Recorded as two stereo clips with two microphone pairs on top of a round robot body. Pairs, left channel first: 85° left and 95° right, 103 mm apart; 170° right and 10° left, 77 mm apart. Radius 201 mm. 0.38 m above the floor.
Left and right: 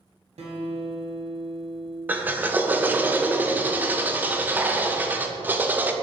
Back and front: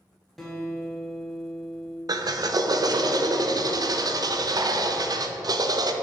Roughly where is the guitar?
Right.